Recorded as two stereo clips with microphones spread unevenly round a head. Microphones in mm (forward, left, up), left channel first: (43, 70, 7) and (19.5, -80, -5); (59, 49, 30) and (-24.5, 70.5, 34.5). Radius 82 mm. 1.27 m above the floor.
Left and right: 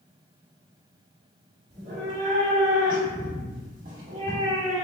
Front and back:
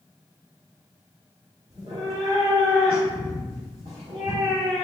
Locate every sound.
1.7 s a cat meowing: 145° right, 1.4 m